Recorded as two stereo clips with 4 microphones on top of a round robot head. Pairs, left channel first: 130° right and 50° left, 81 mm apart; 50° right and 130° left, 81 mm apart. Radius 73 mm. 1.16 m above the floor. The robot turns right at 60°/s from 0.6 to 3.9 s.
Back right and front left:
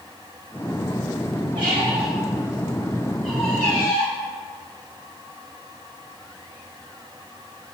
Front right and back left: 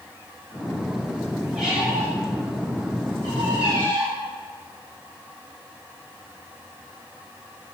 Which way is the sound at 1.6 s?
40° left.